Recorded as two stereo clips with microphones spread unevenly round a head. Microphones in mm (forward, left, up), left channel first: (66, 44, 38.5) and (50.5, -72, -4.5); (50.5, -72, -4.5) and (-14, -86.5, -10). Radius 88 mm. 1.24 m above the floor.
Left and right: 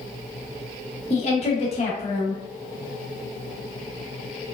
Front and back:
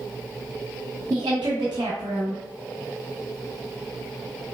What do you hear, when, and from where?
1.1 s a woman speaking: 140° left, 0.6 m